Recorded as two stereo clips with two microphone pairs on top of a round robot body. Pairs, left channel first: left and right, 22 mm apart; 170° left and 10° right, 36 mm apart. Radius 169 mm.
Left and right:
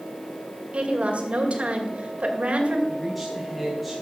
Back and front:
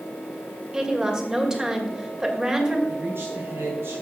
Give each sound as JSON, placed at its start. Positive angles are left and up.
{"t": 0.7, "sound": "a woman speaking", "azimuth_deg": -80, "distance_m": 2.5}
{"t": 2.9, "sound": "a man speaking", "azimuth_deg": 0, "distance_m": 3.5}